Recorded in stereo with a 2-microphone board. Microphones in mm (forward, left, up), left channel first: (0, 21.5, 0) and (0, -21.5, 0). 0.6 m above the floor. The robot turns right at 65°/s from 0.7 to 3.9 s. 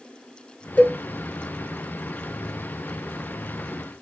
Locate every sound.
0.8 s a cowbell: 40° left (ahead or behind), 1.5 m; by 1.0 s 35° left (ahead or behind), 1.5 m